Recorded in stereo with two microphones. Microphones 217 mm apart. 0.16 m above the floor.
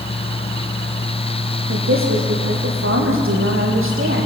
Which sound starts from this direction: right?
A woman speaking, at 1.7 s.